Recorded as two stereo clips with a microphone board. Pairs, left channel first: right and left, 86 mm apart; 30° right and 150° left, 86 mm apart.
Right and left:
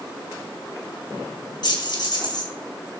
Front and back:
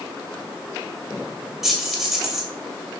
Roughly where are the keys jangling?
Behind right.